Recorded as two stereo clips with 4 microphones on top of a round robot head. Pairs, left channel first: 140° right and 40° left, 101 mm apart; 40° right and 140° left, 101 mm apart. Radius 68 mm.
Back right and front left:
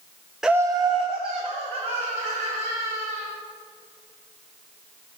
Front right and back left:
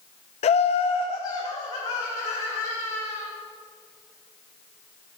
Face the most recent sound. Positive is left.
turn(degrees=20)